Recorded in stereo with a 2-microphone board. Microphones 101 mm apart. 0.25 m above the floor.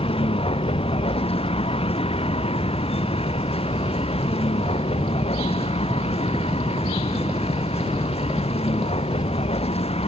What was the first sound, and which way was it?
A vehicle, 70° left (ahead or behind).